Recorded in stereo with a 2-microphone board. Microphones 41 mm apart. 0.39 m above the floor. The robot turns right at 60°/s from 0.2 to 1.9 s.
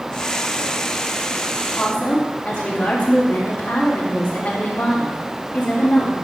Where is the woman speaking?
55° left (ahead or behind), 2.5 m; by 6.1 s 65° left (ahead or behind), 2.5 m.